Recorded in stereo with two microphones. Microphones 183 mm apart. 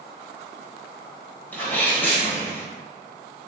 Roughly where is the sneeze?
Centre.